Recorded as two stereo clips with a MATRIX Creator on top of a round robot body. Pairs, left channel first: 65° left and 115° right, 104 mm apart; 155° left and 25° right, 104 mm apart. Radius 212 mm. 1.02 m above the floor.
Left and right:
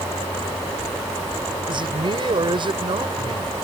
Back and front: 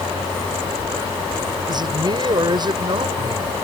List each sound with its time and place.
1.7 s a man speaking: 70° right